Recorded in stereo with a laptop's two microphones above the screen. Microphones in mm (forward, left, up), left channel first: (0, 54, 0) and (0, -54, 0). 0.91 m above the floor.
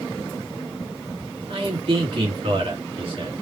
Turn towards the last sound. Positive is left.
turn(degrees=-55)  # may be behind; listen again after turning